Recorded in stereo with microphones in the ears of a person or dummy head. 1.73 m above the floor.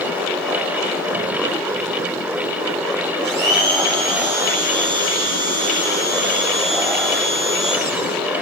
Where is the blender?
65° right (ahead or behind), 7 m.